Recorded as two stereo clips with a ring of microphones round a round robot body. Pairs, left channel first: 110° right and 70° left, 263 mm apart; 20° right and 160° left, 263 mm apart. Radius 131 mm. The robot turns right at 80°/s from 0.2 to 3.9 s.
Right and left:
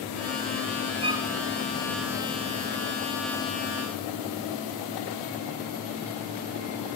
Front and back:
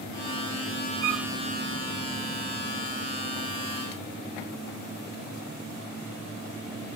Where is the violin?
135° left; by 1.3 s 160° left.